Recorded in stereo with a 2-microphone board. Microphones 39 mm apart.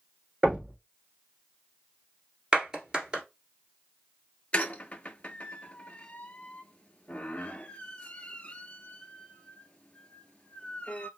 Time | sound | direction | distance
0.4 | knocking | 30° right (ahead or behind) | 3 m
2.5 | a clap | 20° right (ahead or behind) | 1.6 m
4.5 | a squeak | 35° left (ahead or behind) | 0.5 m